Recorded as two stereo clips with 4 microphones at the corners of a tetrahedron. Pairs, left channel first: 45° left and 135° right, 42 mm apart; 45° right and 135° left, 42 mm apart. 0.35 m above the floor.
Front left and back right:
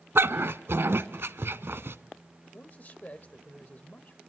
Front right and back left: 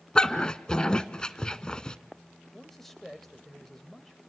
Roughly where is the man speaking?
Ahead left.